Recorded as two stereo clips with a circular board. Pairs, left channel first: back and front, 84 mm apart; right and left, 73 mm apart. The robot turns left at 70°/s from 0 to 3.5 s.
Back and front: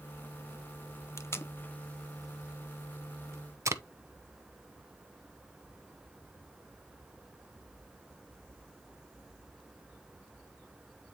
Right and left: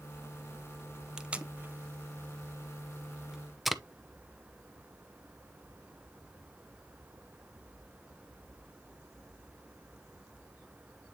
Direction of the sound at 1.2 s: 165° left.